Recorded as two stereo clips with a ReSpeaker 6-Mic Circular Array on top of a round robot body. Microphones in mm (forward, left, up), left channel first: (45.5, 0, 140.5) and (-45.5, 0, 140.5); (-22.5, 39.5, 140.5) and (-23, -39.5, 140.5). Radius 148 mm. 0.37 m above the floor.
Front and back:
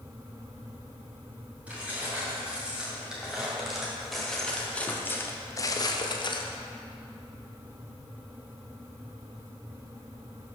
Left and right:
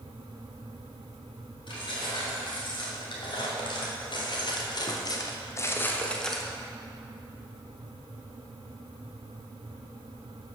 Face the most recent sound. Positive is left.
turn(degrees=-5)